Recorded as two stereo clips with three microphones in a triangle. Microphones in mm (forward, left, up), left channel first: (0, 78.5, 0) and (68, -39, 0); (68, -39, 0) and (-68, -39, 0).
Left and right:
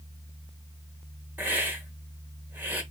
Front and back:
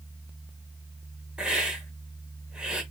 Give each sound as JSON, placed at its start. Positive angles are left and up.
{"t": 1.4, "sound": "a hiss", "azimuth_deg": -110, "distance_m": 1.5}